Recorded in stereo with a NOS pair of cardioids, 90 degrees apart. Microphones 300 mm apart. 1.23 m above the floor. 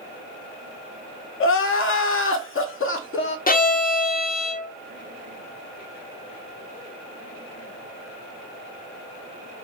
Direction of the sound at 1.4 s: 45° left.